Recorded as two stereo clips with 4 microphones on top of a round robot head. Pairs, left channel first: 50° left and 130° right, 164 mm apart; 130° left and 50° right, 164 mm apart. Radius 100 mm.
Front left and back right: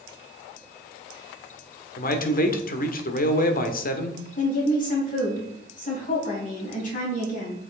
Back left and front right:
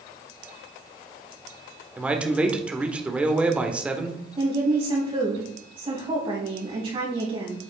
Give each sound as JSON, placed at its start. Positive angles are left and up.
{"t": 2.0, "sound": "a man speaking", "azimuth_deg": 35, "distance_m": 1.3}
{"t": 4.4, "sound": "a woman speaking", "azimuth_deg": 10, "distance_m": 4.5}